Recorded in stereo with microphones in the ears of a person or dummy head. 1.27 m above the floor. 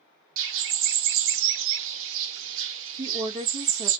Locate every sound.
0.4 s a bird: 65° right (ahead or behind), 0.5 m
3.0 s a woman speaking: 30° right (ahead or behind), 1.4 m